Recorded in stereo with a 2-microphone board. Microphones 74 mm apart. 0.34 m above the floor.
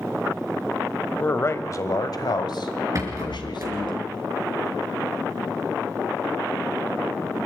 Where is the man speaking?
25° left (ahead or behind), 1.2 m; by 4.0 s 70° left (ahead or behind), 2.5 m.